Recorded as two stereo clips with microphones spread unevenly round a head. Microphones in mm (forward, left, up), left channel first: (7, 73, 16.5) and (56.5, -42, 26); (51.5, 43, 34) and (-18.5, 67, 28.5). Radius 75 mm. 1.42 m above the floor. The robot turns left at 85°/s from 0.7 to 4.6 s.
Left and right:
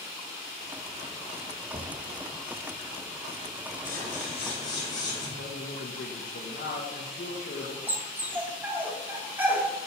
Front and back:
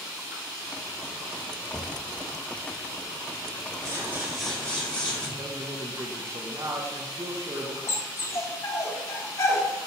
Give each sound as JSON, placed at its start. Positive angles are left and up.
{"t": 1.7, "sound": "knocking", "azimuth_deg": -85, "distance_m": 0.9}
{"t": 3.9, "sound": "scissors", "azimuth_deg": 120, "distance_m": 4.0}
{"t": 5.4, "sound": "a man speaking", "azimuth_deg": 110, "distance_m": 1.3}
{"t": 7.9, "sound": "a dog barking", "azimuth_deg": -5, "distance_m": 1.1}